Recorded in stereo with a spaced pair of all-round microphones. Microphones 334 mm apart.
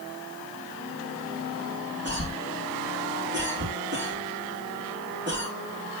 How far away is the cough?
About 3.5 m.